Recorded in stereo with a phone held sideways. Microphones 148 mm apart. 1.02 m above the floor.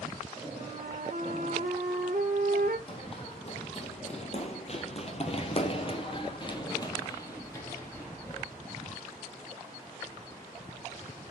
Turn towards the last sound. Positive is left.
turn(degrees=10)  # may be behind; listen again after turning